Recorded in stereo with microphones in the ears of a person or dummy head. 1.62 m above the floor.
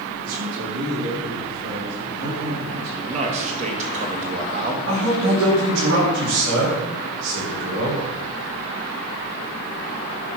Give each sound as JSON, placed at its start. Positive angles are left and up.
{"t": 0.2, "sound": "a man speaking", "side_deg": -90, "distance_m": 4.0}
{"t": 3.0, "sound": "a man speaking", "side_deg": -40, "distance_m": 2.0}
{"t": 4.9, "sound": "a man speaking", "side_deg": -85, "distance_m": 5.0}